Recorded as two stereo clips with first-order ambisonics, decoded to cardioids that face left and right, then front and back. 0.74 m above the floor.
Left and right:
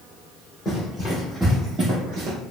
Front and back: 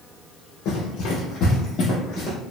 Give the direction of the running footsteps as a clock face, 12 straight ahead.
11 o'clock.